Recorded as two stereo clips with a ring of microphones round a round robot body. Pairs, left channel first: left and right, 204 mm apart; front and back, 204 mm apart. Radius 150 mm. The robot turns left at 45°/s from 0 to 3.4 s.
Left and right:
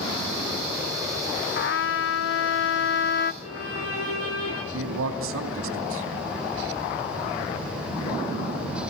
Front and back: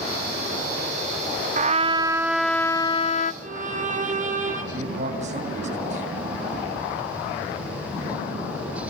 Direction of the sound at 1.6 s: 130° left.